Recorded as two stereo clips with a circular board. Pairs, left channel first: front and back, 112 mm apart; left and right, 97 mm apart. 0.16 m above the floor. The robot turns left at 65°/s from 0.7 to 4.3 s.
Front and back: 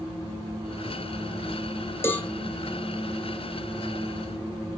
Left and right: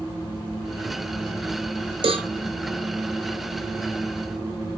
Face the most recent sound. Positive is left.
turn(degrees=145)